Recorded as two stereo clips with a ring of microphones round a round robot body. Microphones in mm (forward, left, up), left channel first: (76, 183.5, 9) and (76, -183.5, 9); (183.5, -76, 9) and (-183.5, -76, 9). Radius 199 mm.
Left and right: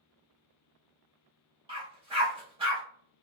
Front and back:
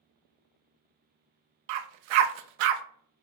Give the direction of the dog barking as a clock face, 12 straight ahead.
6 o'clock.